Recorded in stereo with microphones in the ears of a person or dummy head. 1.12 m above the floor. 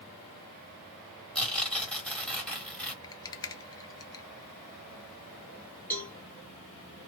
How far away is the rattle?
About 0.6 m.